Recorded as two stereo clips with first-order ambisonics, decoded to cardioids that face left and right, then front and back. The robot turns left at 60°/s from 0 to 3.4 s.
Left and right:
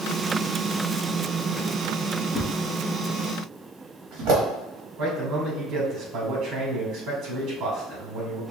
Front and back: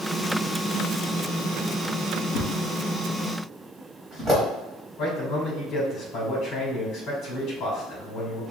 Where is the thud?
40° right, 1.6 m; by 4.4 s 100° right, 1.6 m.